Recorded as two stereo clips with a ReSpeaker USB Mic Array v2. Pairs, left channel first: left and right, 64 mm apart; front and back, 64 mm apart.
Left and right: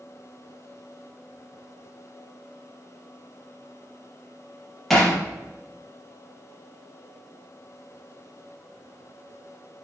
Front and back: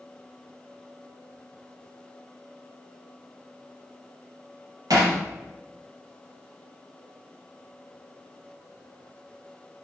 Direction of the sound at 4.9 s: 175° left.